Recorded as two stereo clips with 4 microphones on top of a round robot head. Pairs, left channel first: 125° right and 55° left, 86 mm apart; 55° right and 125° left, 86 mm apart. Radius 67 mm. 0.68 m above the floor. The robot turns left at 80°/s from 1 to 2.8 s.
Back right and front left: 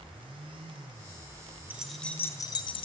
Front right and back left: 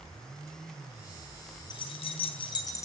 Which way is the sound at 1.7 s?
20° right.